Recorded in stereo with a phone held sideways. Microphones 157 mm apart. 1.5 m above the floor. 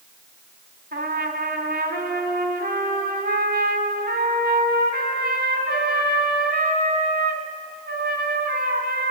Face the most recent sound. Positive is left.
turn(degrees=-65)  # may be behind; listen again after turning